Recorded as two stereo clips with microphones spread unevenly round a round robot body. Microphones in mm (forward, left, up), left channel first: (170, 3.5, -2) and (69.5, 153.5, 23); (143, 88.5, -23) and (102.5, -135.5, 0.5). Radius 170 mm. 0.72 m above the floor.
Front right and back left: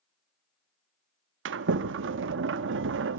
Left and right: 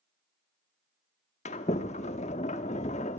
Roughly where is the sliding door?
Behind left.